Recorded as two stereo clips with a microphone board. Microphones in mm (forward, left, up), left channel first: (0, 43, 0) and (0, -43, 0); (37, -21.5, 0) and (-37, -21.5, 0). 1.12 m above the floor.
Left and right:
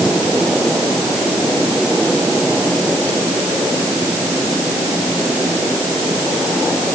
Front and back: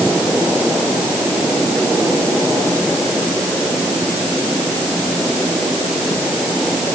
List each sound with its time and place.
Only background noise.